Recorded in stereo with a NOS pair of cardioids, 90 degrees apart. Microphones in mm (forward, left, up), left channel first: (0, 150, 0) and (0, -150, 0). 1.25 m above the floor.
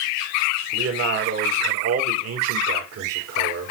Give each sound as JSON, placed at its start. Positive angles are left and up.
{"t": 0.7, "sound": "a man speaking", "azimuth_deg": -55, "distance_m": 4.0}